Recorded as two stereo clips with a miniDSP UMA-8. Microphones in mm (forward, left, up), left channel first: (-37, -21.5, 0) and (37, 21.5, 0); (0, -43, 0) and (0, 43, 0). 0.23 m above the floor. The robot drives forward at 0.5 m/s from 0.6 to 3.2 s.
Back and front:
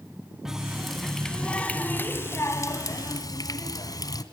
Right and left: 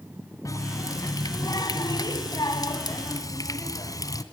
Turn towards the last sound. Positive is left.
turn(degrees=-125)